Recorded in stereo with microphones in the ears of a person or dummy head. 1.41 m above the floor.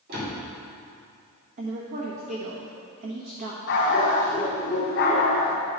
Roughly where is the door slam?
Right.